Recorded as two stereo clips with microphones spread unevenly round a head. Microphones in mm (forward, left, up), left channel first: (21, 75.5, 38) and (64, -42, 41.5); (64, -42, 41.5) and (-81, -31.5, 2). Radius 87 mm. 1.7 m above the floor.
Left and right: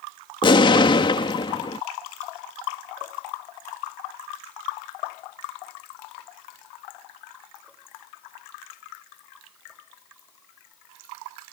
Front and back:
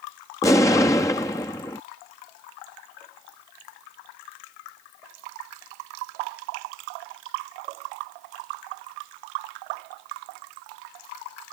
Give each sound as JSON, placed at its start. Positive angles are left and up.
{"t": 0.4, "sound": "an explosion", "azimuth_deg": 60}